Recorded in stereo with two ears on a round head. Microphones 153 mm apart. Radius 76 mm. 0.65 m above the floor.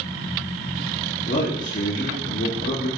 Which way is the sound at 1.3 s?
50° left (ahead or behind).